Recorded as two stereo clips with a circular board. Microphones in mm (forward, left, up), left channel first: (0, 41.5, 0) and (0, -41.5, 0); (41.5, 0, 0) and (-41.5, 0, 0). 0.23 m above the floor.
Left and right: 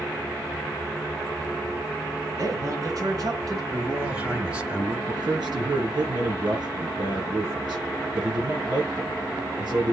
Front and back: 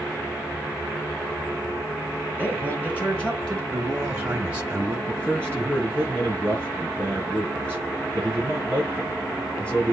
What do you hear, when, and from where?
2.4 s a man speaking: 60° right, 2.5 m; by 3.6 s 75° right, 3 m
3.7 s a man speaking: 145° right, 1.0 m
5.1 s a man speaking: 70° right, 5 m